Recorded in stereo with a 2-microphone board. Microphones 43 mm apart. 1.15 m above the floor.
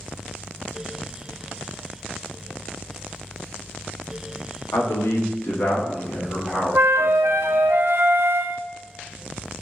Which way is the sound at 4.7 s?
80° left.